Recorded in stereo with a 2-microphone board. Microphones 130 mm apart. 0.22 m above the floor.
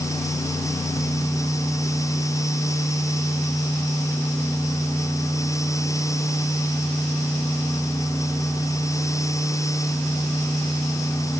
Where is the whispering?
No whispering in this recording.